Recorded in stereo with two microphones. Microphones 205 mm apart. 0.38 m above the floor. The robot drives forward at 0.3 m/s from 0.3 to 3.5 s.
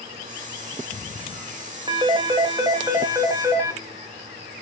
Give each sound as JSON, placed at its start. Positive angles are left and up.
{"t": 1.9, "sound": "a phone ringing", "side_deg": -25, "distance_m": 0.7}